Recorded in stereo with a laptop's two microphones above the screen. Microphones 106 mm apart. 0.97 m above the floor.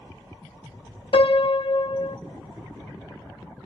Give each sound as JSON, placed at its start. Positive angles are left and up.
{"t": 1.1, "sound": "a piano", "side_deg": 70, "distance_m": 0.6}